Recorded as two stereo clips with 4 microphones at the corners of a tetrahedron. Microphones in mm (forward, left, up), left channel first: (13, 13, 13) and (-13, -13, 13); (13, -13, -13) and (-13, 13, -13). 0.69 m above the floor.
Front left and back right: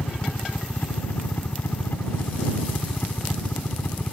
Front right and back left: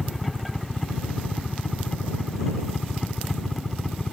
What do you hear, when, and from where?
0.0 s a helicopter: 40° left